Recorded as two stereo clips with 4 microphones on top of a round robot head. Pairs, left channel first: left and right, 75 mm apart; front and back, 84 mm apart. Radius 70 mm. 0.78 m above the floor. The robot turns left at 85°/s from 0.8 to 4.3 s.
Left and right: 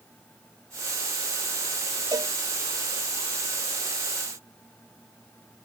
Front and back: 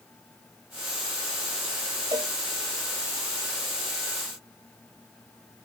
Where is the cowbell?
125° right; by 2.3 s 145° right.